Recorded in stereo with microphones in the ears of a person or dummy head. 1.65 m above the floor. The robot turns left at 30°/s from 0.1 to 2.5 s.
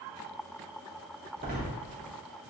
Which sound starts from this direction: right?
A door slam, at 1.4 s.